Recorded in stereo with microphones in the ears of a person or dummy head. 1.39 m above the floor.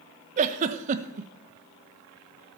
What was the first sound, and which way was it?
A giggle, 40° right (ahead or behind).